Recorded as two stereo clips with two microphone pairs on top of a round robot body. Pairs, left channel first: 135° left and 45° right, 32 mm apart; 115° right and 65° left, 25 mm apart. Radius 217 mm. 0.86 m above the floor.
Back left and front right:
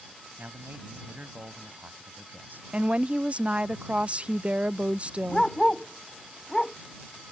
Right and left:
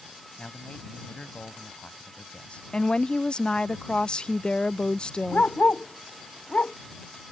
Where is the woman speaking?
75° right.